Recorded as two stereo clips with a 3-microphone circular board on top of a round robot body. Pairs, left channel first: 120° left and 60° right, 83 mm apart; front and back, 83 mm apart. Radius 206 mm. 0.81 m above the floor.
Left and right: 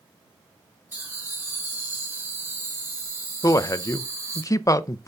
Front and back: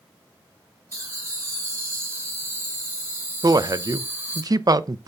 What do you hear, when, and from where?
0.9 s laughter: 125° right, 5.5 m; by 4.4 s 110° right, 3 m
3.4 s a man speaking: 155° left, 0.6 m